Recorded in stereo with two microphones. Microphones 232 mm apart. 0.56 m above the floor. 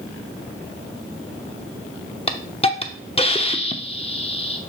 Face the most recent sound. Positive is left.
turn(degrees=25)  # may be behind; listen again after turning